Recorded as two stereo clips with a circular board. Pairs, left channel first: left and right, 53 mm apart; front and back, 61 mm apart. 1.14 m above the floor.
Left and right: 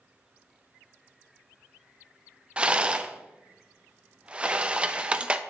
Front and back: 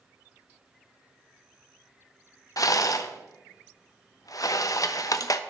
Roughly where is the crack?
No crack in this recording.